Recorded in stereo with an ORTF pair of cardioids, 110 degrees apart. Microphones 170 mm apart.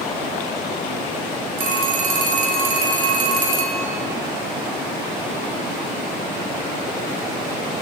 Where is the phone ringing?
55° right, 1.7 m.